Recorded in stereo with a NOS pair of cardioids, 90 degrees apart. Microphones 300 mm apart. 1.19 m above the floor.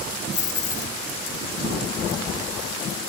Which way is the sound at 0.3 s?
40° left.